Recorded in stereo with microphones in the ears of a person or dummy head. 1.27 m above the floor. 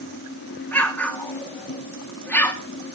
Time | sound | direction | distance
0.7 | an explosion | 5° left (ahead or behind) | 1.4 m